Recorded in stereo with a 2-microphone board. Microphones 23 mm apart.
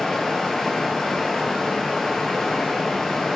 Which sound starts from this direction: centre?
Running water, at 0.0 s.